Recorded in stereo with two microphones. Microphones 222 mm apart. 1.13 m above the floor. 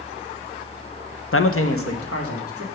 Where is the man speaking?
65° left (ahead or behind), 0.6 m; by 2.6 s 80° left, 1.9 m.